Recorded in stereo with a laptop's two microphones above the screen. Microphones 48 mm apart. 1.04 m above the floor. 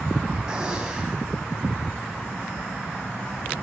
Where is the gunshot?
15° right (ahead or behind), 7 m.